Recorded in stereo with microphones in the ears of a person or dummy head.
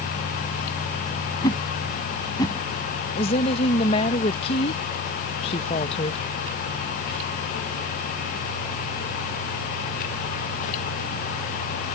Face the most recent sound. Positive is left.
turn(degrees=35)  # may be behind; listen again after turning